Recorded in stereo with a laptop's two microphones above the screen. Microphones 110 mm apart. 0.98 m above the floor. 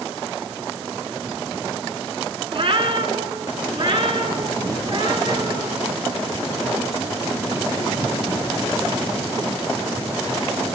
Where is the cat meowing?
55° right (ahead or behind), 3.5 m; by 5.7 s 45° right (ahead or behind), 5.5 m.